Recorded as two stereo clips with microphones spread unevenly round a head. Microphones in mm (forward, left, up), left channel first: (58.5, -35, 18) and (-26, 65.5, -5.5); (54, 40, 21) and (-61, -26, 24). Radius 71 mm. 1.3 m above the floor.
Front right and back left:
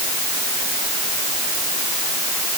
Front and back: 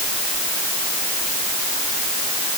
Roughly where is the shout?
No shout in this recording.